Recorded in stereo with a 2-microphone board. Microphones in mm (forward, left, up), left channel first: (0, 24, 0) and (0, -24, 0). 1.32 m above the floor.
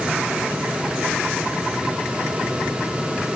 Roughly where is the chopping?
No chopping in this recording.